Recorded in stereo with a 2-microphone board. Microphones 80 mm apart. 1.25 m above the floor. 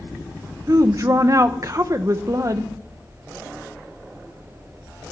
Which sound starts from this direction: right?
A woman speaking, at 0.7 s.